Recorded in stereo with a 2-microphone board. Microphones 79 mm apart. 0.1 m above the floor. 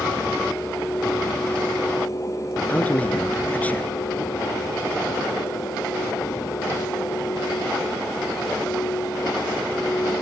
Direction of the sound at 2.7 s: 20° left (ahead or behind).